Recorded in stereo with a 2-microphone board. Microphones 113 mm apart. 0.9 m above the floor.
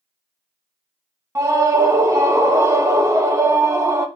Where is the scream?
25° right (ahead or behind), 0.8 m.